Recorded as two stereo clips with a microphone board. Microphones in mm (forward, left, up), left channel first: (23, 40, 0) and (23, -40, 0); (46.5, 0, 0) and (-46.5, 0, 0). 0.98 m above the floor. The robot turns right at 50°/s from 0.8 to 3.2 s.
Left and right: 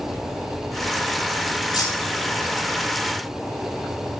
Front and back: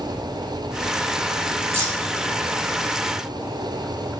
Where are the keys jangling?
120° left, 2 m; by 2.0 s 135° left, 2 m.